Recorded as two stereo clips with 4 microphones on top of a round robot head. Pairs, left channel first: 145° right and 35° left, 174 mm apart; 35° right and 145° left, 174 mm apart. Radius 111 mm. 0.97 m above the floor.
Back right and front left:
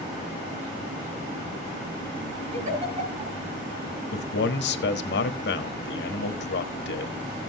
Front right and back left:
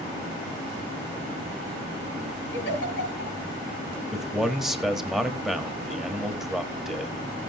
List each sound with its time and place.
2.5 s a giggle: 15° right, 5.5 m
4.1 s a man speaking: 130° right, 1.4 m